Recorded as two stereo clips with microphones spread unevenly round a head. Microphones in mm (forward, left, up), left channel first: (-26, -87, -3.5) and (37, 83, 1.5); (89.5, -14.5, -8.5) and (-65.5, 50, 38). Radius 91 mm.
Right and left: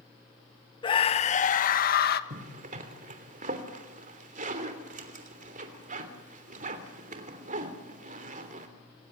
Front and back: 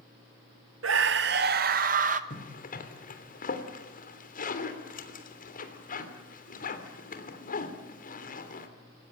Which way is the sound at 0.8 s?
175° right.